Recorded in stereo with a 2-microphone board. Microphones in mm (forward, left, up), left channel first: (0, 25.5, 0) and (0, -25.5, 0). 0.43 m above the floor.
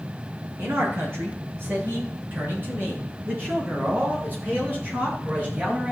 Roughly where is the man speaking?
Right.